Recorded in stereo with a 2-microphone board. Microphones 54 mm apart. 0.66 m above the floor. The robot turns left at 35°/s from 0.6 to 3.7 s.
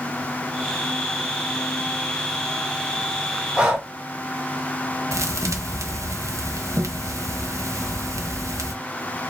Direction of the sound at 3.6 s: 20° right (ahead or behind).